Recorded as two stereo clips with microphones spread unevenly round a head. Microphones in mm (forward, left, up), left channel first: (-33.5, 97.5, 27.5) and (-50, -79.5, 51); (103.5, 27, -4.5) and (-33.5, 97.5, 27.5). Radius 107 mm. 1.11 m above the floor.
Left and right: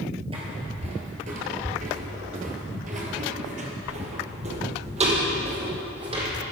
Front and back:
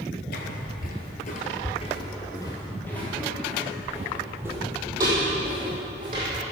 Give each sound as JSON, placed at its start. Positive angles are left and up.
{"t": 0.3, "sound": "footsteps", "azimuth_deg": -45, "distance_m": 1.5}